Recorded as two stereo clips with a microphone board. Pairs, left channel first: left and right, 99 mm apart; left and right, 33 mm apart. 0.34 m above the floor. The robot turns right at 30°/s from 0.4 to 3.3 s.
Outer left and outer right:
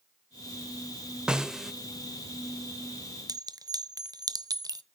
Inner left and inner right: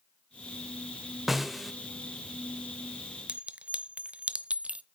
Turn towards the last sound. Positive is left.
turn(degrees=-40)  # may be behind; listen again after turning